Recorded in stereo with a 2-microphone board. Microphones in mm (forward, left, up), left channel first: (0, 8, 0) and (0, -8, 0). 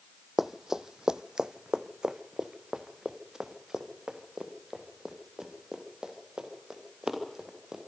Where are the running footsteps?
25° right (ahead or behind), 0.5 m; by 7.8 s 45° right (ahead or behind), 5 m.